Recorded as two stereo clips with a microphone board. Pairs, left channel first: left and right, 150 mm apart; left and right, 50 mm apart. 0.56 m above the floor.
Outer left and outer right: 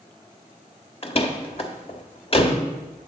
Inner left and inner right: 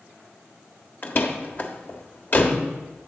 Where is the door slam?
40° left (ahead or behind), 1.1 m.